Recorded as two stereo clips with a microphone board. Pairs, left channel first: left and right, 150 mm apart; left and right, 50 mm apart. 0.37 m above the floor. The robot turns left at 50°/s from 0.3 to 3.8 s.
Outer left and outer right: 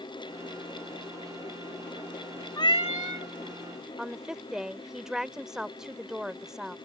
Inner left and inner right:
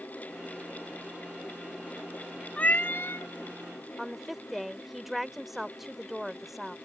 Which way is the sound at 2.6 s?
150° left.